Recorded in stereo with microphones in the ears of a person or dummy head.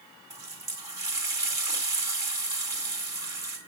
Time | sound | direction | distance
0.3 | a running tap | 15° right (ahead or behind) | 2 m